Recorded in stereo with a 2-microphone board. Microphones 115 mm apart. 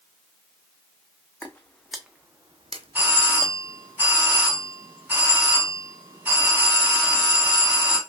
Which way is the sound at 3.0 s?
15° right (ahead or behind).